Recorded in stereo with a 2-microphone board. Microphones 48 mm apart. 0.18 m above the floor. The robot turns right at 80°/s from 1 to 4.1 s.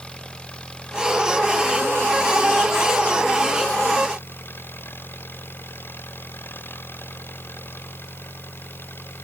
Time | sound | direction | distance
0.0 | an engine running | 160° left | ?